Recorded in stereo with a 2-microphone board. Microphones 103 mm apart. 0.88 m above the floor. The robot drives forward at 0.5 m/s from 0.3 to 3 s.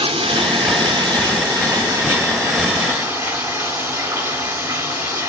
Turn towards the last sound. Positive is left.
turn(degrees=-25)  # may be behind; listen again after turning